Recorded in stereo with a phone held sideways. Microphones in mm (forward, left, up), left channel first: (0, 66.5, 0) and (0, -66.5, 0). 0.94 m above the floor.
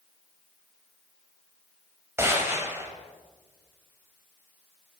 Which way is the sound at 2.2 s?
20° right (ahead or behind).